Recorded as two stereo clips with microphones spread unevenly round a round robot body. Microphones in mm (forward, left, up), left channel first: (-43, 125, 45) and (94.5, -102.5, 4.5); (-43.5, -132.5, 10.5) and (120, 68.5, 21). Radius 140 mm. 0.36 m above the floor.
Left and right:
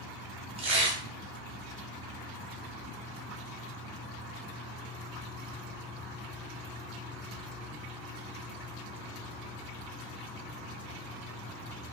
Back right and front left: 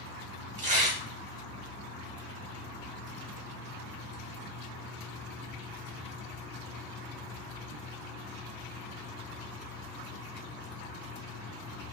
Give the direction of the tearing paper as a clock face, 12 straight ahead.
12 o'clock.